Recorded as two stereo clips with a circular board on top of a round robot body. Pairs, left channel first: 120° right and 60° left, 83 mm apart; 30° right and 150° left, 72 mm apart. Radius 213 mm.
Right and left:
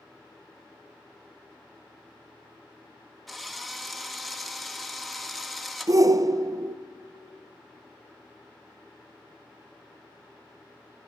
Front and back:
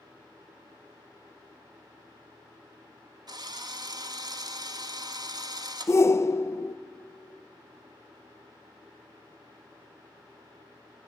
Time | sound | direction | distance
3.3 | a drill | 155° left | 1.6 m
5.9 | a shout | 15° left | 0.6 m